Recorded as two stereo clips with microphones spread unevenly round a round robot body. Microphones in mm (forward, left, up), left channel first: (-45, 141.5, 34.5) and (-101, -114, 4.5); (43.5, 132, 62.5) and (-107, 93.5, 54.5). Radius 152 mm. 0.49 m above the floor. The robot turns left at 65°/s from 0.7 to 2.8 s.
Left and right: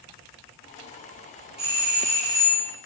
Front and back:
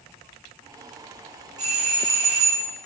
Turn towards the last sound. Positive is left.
turn(degrees=165)